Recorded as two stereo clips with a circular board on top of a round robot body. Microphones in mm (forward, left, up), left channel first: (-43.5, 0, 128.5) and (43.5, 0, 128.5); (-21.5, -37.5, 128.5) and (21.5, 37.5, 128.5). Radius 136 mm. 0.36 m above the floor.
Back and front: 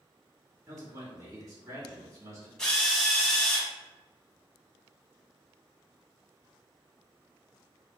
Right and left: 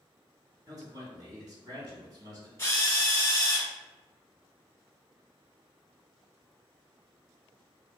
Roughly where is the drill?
Right.